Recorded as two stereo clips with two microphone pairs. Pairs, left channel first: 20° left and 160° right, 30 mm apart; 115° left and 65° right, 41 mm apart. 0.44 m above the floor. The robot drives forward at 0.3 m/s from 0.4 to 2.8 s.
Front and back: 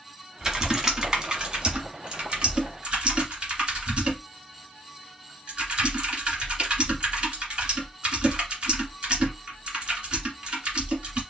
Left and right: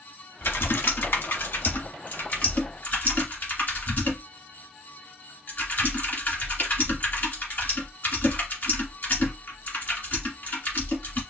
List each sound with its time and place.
0.4 s typing on a keyboard: 135° left, 1.1 m; by 11.2 s 150° left, 1.6 m